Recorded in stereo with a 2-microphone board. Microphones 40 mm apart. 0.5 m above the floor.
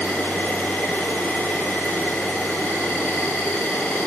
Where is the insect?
80° left, 1.9 m.